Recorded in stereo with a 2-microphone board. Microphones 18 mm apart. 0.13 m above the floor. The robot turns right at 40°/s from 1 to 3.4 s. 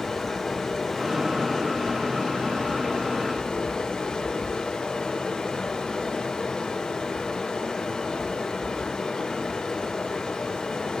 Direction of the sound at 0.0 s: 10° left.